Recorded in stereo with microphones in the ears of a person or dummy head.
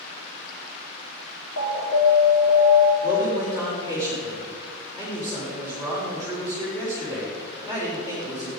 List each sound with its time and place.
1.6 s an alarm: 80° left, 3 m
3.0 s a man speaking: 25° left (ahead or behind), 4 m